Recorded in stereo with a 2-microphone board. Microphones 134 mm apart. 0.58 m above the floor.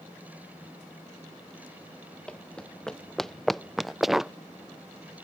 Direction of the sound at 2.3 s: 10° left (ahead or behind).